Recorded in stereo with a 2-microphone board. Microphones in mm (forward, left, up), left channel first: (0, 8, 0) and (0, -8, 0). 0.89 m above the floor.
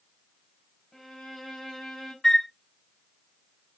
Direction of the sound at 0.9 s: 15° left (ahead or behind).